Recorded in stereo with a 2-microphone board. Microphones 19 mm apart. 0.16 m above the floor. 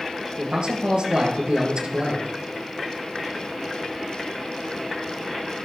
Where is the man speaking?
60° right (ahead or behind), 3 m.